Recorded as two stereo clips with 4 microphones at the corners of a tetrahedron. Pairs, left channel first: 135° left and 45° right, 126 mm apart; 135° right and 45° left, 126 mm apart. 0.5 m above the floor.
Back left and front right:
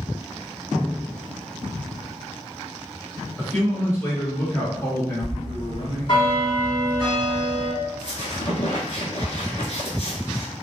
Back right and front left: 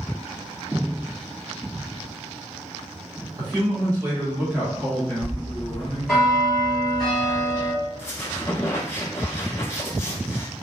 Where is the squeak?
155° left, 0.8 m.